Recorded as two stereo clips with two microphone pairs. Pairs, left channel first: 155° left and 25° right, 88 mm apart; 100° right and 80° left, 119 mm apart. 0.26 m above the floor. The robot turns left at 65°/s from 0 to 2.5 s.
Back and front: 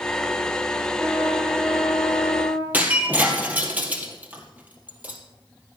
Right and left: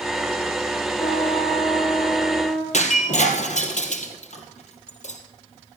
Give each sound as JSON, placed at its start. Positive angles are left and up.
{"t": 1.0, "sound": "a trumpet", "azimuth_deg": -80, "distance_m": 6.0}
{"t": 2.7, "sound": "breaking glass", "azimuth_deg": -95, "distance_m": 2.5}